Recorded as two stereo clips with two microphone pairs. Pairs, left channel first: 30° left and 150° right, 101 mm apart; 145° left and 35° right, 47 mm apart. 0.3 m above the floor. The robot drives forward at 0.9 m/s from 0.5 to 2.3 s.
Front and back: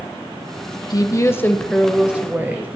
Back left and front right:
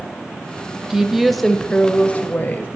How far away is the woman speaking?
About 1.2 m.